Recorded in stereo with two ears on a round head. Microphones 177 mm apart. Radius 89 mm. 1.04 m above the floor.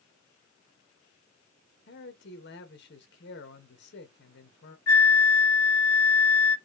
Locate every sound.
1.9 s a man speaking: 60° left (ahead or behind), 1.5 m
4.9 s a flute: 75° left (ahead or behind), 1.2 m